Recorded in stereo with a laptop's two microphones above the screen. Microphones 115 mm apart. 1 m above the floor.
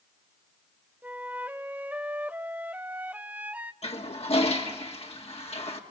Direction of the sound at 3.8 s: 65° left (ahead or behind).